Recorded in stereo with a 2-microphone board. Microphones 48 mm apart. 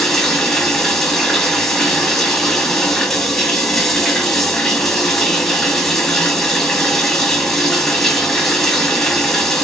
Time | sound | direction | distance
0.0 | running water | 5° left (ahead or behind) | 1.2 m